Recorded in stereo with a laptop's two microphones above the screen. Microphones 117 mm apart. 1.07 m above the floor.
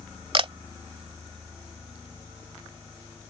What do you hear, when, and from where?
0.3 s a camera shutter: 50° right (ahead or behind)